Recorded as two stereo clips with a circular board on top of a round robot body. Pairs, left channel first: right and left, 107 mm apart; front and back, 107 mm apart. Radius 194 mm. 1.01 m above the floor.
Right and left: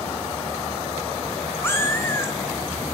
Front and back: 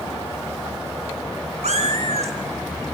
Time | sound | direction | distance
1.6 | a cat meowing | 160° right | 0.9 m